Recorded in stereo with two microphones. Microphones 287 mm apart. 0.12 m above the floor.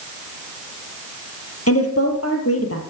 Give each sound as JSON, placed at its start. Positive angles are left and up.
{"t": 1.7, "sound": "a woman speaking", "side_deg": 55, "distance_m": 3.0}